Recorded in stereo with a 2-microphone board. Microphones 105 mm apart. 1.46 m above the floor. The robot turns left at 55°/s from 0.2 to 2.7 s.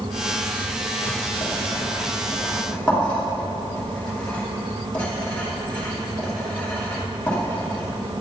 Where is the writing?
75° left (ahead or behind), 2.5 m; by 8.2 s 10° left (ahead or behind), 2.5 m.